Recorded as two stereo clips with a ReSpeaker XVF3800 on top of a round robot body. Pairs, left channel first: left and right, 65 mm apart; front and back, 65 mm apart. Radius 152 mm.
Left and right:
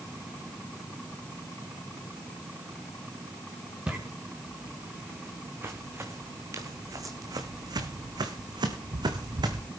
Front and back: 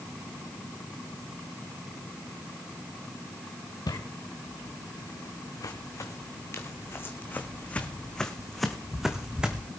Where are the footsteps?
20° right, 3 m; by 9.7 s 105° right, 1.9 m.